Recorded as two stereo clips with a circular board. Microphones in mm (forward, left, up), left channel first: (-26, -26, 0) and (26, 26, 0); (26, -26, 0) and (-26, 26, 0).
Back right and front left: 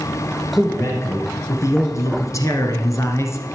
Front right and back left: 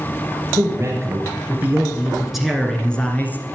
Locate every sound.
0.6 s a man speaking: 175° left, 2.5 m; by 3.6 s 100° right, 2 m